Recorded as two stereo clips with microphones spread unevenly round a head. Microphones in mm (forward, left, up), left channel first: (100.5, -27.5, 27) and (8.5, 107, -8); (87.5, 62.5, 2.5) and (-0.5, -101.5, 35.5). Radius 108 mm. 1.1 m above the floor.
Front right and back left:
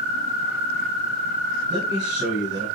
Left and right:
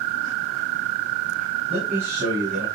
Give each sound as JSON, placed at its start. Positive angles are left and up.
{"t": 1.7, "sound": "a man speaking", "azimuth_deg": 160, "distance_m": 9.0}